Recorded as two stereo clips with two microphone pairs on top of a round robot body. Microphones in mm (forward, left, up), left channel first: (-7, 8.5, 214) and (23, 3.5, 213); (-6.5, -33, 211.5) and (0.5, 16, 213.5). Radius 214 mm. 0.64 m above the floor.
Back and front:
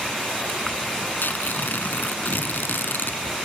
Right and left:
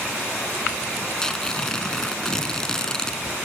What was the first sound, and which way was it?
Tearing paper, 175° right.